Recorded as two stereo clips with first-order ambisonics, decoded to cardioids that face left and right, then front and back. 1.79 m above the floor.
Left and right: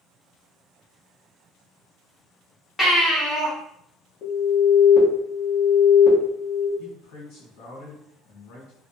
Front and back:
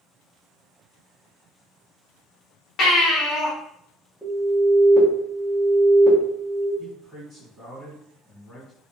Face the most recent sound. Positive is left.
turn(degrees=85)